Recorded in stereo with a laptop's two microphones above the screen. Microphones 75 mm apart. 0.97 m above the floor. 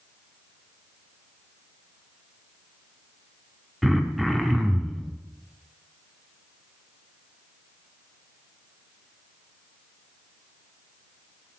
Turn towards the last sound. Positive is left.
turn(degrees=0)  # may be behind; listen again after turning